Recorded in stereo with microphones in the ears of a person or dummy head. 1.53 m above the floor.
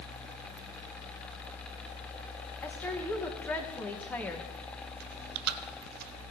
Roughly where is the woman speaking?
Centre.